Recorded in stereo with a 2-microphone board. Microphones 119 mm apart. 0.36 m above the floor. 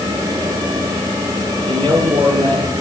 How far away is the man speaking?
About 10 m.